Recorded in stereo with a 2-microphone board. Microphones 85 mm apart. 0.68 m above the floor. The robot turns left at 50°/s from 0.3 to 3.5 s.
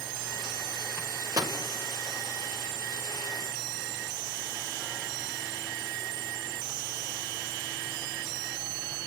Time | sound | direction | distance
1.0 | a microwave | 25° right (ahead or behind) | 2 m